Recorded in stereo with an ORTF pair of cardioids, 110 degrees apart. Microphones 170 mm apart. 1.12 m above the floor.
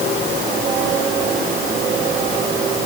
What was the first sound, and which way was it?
Only background noise.